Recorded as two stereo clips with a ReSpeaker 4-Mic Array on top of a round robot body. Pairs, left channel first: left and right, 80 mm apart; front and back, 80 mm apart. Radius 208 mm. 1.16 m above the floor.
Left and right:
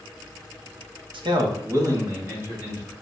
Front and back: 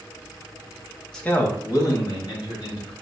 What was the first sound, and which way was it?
A man speaking, 85° right.